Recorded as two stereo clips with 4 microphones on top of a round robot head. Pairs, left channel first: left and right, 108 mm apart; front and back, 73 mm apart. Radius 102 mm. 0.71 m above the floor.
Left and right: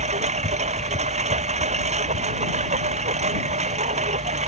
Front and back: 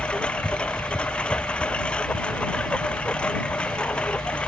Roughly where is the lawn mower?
Right.